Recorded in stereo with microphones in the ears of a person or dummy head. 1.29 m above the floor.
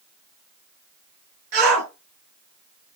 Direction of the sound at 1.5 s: 50° right (ahead or behind).